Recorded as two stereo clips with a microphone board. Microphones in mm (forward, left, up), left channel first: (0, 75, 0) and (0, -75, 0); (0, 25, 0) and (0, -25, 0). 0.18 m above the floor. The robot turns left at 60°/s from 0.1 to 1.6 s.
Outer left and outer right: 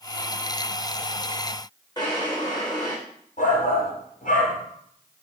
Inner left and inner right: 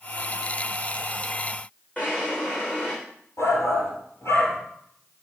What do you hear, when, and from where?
2.0 s a drawer: 25° left (ahead or behind), 3.5 m
3.4 s a shout: 60° left (ahead or behind), 3.5 m